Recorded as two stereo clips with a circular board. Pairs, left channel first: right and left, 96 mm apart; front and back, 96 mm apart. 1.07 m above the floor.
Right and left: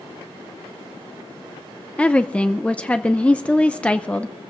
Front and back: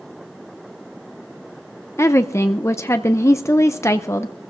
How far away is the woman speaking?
About 0.5 m.